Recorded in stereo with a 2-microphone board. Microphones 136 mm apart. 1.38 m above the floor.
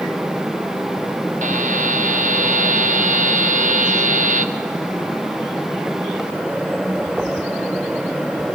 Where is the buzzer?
70° right (ahead or behind), 0.9 m.